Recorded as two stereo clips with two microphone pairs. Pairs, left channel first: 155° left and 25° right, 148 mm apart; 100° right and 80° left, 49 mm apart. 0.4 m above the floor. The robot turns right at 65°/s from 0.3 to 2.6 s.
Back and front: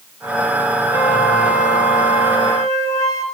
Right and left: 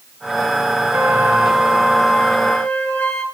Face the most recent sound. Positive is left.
turn(degrees=-140)